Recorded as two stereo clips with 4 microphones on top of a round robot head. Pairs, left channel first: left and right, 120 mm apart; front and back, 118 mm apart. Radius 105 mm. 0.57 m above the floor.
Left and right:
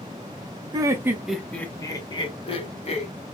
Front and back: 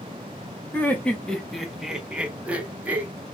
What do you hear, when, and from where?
0.7 s laughter: 60° right, 0.9 m; by 3.1 s 105° left, 1.4 m